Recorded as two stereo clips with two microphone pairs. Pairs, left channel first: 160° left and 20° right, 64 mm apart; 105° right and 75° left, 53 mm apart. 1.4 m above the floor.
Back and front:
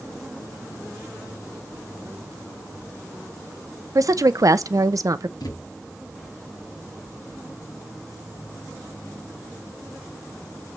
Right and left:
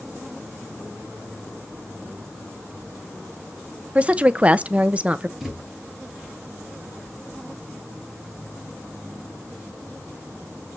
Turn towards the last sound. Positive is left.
turn(degrees=155)